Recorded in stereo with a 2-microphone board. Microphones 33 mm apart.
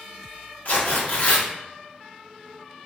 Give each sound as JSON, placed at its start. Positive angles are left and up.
{"t": 0.7, "sound": "tearing paper", "side_deg": 50, "distance_m": 0.7}